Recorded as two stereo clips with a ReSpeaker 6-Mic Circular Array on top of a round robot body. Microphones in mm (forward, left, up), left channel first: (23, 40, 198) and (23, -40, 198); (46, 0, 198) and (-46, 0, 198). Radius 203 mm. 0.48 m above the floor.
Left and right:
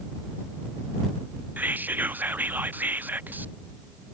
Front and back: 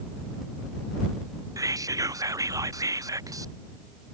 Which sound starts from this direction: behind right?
Whispering, at 1.6 s.